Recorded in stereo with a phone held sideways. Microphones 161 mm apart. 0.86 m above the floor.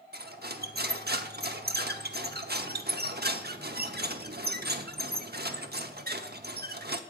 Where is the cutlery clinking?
80° right, 1.0 m.